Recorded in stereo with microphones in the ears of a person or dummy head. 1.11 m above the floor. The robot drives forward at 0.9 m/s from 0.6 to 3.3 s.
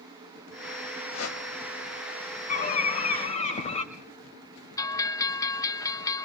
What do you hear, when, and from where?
1.1 s a whoosh: 85° left, 4 m; by 1.4 s 90° left, 4 m
2.5 s a bird: 45° left (ahead or behind), 3 m; by 3.8 s 40° left (ahead or behind), 3.5 m
4.8 s a bell: 15° left (ahead or behind), 0.9 m